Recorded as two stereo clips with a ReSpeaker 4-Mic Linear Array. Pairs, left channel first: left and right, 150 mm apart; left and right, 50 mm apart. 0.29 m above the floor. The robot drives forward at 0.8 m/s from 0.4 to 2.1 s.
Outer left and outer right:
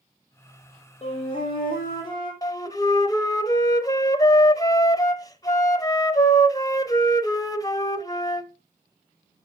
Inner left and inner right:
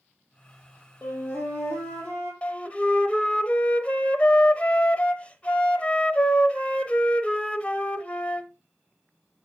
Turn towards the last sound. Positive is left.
turn(degrees=25)  # may be behind; listen again after turning